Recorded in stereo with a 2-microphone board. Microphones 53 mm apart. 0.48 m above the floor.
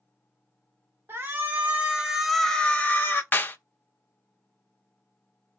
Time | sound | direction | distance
1.1 | a shout | 50° right (ahead or behind) | 1.2 m
3.3 | a clap | 35° left (ahead or behind) | 0.6 m